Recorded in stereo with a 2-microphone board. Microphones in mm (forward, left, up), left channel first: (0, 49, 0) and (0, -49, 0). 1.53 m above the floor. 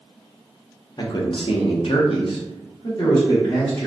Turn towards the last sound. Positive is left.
turn(degrees=45)  # may be behind; listen again after turning